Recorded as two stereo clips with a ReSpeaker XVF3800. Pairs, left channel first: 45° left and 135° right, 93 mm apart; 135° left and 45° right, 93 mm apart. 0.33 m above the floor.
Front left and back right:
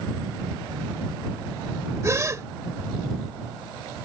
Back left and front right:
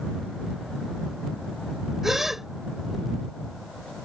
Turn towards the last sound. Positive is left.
turn(degrees=-130)